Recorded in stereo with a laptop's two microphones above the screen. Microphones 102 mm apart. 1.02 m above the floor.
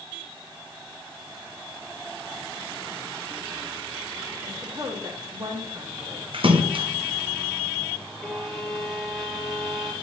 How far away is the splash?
About 0.8 m.